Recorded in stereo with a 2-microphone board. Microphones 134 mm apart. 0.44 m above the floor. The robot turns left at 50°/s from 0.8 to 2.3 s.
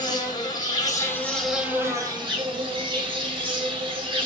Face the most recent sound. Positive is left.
turn(degrees=-40)